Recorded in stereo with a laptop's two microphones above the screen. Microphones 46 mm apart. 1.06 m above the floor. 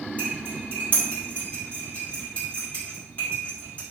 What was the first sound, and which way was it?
Cutlery clinking, 35° left (ahead or behind).